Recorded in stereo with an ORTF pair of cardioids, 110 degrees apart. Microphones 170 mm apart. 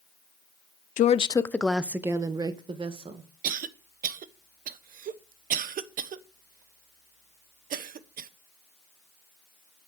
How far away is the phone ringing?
No phone ringing in this recording.